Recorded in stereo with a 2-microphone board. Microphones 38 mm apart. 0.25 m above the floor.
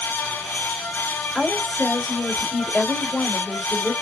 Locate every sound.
1.4 s a woman speaking: 15° left (ahead or behind), 1.6 m